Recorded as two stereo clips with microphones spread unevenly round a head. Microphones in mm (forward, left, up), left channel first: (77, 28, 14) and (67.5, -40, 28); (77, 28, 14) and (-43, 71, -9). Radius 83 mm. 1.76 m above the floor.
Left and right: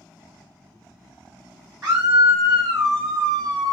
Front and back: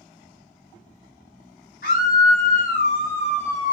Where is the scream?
55° right, 1.5 m; by 3.7 s 110° right, 0.6 m.